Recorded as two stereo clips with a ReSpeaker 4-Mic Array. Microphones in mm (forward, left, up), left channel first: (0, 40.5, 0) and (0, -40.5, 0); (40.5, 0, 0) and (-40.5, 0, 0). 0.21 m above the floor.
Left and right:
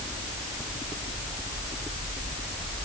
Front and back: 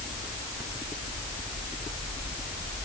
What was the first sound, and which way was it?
Only background noise.